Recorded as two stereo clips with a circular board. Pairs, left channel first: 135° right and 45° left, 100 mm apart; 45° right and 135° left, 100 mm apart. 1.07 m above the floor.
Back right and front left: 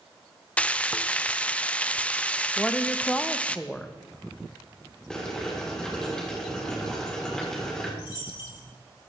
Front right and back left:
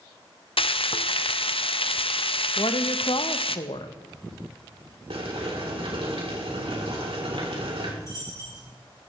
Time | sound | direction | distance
0.6 | frying | 60° right | 0.6 m
2.6 | a woman speaking | 55° right | 1.0 m
5.1 | boiling | 140° left | 3.5 m
8.0 | a dropped coin | 100° right | 8 m